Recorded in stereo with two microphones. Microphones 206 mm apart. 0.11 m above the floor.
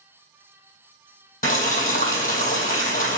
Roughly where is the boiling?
Left.